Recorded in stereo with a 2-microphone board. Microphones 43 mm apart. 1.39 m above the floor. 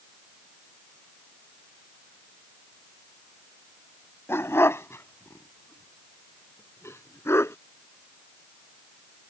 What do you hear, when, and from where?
4.3 s a dog barking: 70° left (ahead or behind); by 7.5 s 80° left